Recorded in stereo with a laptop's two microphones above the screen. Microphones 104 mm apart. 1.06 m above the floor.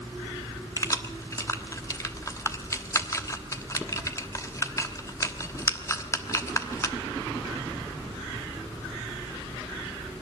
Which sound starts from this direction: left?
Keys jangling, at 0.8 s.